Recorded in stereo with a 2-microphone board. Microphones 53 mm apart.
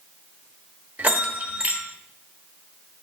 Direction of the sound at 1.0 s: 35° right (ahead or behind).